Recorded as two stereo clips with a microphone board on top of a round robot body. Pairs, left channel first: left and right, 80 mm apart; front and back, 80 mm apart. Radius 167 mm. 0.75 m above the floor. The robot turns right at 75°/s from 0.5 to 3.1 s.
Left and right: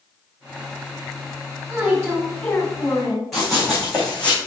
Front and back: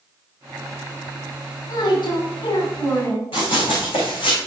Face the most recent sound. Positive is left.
turn(degrees=15)